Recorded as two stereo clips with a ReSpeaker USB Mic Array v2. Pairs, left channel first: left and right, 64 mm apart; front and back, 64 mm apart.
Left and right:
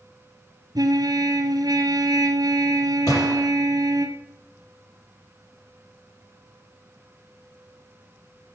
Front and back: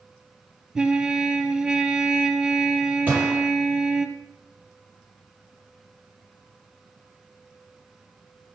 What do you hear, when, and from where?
0.8 s a trumpet: 100° right, 1.6 m
3.1 s a gunshot: 115° left, 7 m